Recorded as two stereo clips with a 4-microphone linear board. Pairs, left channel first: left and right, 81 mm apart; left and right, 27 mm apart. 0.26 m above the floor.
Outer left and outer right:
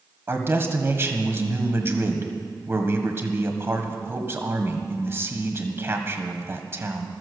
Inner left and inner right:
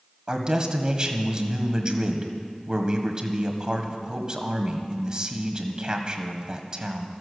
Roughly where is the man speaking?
Right.